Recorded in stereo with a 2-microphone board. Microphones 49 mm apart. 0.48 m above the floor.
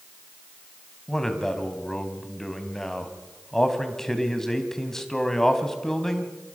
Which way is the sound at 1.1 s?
10° left (ahead or behind).